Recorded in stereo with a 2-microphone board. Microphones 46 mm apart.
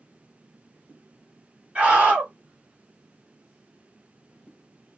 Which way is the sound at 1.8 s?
20° right (ahead or behind).